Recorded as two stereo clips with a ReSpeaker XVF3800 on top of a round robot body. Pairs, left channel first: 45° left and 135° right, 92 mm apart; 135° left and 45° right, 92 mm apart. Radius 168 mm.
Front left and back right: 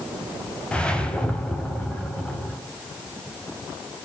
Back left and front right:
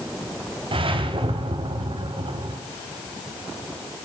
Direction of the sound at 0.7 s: 35° right.